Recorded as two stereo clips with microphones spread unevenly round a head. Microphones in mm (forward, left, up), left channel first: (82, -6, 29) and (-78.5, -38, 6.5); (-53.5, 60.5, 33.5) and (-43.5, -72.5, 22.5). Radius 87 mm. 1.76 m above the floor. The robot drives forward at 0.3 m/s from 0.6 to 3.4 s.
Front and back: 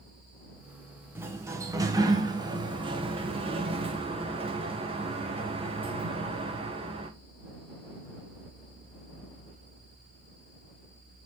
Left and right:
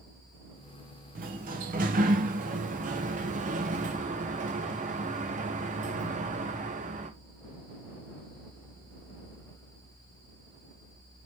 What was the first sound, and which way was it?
A sliding door, 95° right.